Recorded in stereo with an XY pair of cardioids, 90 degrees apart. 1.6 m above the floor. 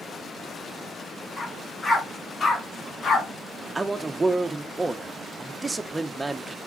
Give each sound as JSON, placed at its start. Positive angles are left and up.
{"t": 1.4, "sound": "a dog barking", "azimuth_deg": 30, "distance_m": 5.0}
{"t": 3.8, "sound": "a man speaking", "azimuth_deg": -25, "distance_m": 1.3}